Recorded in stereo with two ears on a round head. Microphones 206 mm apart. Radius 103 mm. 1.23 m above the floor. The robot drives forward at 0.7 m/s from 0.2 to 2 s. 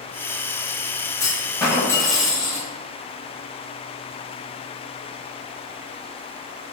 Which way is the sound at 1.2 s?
15° left (ahead or behind).